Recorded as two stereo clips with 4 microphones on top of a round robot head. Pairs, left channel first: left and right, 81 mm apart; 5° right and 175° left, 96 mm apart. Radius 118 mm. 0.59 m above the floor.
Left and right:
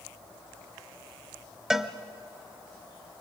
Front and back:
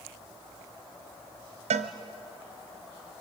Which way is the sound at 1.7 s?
170° right.